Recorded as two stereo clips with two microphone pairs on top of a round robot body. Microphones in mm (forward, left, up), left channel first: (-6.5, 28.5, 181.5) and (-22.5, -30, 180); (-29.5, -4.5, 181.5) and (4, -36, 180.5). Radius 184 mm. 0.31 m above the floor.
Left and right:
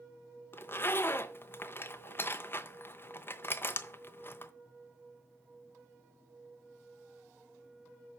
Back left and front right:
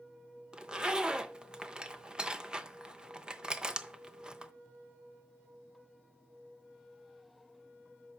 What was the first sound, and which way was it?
A zipper, 25° left.